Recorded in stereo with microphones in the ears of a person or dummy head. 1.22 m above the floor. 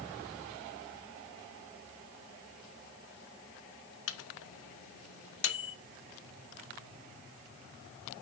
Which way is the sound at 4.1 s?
75° left (ahead or behind).